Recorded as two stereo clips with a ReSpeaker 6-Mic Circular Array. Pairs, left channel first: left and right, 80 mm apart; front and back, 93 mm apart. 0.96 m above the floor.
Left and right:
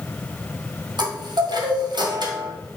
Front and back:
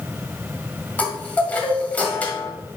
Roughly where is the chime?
Right.